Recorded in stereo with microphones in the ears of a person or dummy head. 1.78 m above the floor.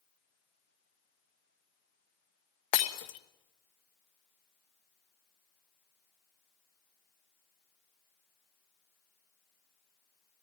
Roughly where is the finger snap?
I don't hear a finger snap.